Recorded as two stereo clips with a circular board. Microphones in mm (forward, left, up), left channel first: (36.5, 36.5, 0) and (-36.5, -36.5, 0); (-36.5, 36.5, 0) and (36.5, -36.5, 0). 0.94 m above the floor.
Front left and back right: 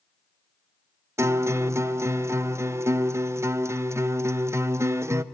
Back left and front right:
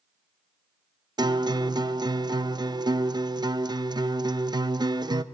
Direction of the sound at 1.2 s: 75° right.